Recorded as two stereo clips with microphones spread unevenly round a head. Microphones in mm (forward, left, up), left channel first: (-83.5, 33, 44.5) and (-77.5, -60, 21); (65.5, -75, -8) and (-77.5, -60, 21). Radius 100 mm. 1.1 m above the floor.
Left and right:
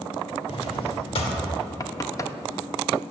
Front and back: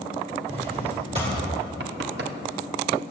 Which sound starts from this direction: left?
A drawer, at 0.5 s.